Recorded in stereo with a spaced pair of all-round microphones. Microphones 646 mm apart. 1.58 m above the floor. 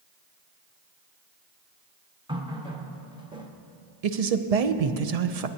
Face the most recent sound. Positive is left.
turn(degrees=-65)  # may be behind; listen again after turning